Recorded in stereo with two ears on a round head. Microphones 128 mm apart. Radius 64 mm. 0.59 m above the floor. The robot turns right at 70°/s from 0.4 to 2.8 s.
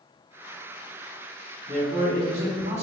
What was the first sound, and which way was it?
A man speaking, 145° right.